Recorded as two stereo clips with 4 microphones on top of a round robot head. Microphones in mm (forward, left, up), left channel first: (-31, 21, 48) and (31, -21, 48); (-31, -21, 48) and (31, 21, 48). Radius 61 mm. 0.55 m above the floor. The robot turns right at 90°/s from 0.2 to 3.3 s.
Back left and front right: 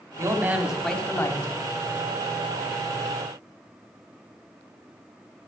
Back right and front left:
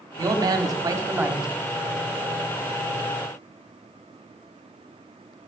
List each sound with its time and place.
0.2 s a man speaking: straight ahead, 1.7 m; by 1.5 s 115° left, 1.7 m